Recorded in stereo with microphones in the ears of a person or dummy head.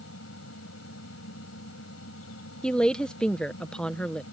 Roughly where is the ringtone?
No ringtone in this recording.